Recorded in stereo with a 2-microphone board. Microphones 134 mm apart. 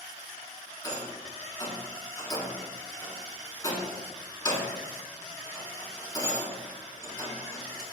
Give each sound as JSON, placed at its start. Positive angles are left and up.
{"t": 0.8, "sound": "a rattle", "side_deg": 30, "distance_m": 0.5}